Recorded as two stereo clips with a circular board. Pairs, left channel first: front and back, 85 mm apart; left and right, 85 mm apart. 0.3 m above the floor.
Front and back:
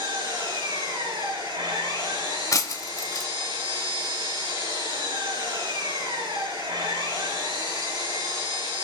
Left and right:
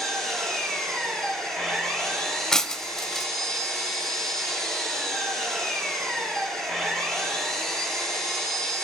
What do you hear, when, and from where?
0.0 s an engine running: 170° left, 4.5 m
2.5 s breaking glass: 10° left, 0.6 m